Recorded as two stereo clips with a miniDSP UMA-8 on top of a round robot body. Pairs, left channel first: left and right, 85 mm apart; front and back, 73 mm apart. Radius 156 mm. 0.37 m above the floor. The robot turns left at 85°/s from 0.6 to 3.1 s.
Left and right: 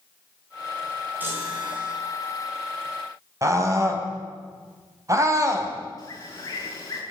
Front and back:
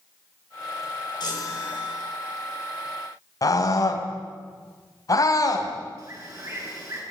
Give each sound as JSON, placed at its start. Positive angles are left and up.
{"t": 1.2, "sound": "a chime", "azimuth_deg": -20, "distance_m": 6.5}
{"t": 3.4, "sound": "a scream", "azimuth_deg": -40, "distance_m": 4.5}
{"t": 6.0, "sound": "a bird", "azimuth_deg": 140, "distance_m": 7.0}